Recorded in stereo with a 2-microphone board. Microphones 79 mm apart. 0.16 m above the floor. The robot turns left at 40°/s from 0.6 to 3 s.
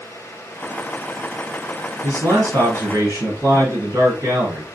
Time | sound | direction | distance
2.0 | a man speaking | 80° right | 1.9 m